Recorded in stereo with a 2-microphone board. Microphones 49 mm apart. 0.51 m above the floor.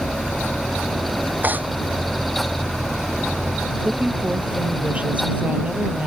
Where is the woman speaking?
25° right (ahead or behind).